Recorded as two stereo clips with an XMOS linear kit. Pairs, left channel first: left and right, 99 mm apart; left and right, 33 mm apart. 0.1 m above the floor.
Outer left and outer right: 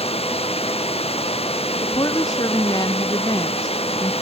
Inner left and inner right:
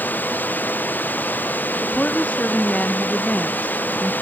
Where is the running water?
85° left.